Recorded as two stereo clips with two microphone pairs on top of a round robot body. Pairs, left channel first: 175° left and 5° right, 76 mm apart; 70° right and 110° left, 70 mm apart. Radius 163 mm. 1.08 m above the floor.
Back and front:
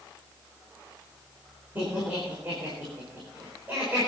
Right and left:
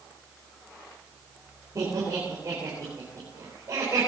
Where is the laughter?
60° left, 4.5 m.